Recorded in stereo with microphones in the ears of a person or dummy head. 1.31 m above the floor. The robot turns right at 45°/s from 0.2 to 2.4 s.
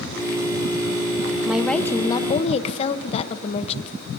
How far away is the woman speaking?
About 0.9 m.